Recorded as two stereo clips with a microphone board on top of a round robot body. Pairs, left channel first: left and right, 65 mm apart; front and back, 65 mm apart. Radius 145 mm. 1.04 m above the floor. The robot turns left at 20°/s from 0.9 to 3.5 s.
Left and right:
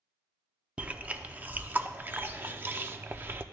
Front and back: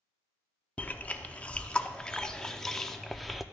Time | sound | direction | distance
0.8 | chewing | 40° right | 0.7 m